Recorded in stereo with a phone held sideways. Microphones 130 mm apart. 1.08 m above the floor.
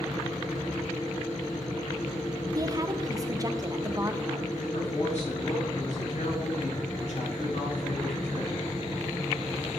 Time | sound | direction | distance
0.0 | a fan | 80° left | 5 m
2.5 | a woman speaking | 30° right (ahead or behind) | 0.8 m
4.6 | a man speaking | 65° left (ahead or behind) | 5 m